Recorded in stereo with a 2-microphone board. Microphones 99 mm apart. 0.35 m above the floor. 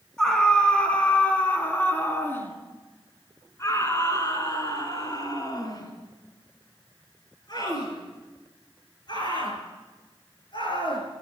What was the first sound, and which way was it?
A scream, 10° left (ahead or behind).